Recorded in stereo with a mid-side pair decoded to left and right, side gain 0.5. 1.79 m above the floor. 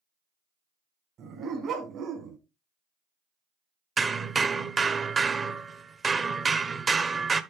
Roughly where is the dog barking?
Ahead right.